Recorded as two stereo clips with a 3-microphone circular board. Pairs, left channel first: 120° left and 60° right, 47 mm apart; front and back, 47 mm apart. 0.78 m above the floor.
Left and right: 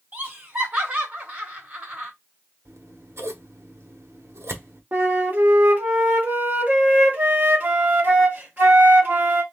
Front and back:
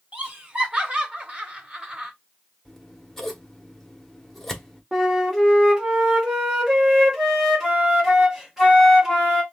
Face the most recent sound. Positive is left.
turn(degrees=-105)